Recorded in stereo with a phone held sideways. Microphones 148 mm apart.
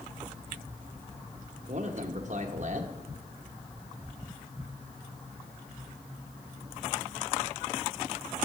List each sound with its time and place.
1.7 s a man speaking: 55° right (ahead or behind), 1.1 m